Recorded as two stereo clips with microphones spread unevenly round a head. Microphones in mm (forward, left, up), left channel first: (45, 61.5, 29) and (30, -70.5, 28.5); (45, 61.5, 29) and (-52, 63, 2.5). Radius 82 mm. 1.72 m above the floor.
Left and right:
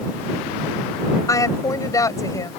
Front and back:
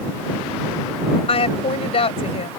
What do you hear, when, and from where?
1.3 s a woman speaking: 15° left